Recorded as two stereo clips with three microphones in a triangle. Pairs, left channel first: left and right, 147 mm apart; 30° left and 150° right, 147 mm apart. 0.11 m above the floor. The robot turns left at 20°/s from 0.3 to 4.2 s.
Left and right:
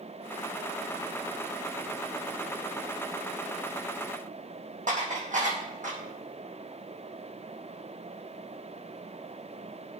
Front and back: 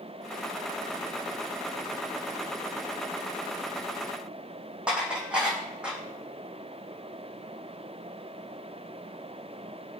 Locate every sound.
4.9 s dishes clattering: 70° right, 4 m